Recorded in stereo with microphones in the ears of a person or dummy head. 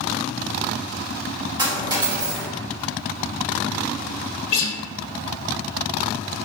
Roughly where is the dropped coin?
Right.